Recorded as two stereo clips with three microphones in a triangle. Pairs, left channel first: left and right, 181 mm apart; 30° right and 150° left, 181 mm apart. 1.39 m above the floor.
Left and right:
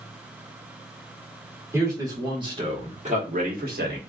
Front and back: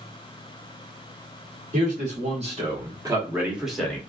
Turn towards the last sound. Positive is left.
turn(degrees=-110)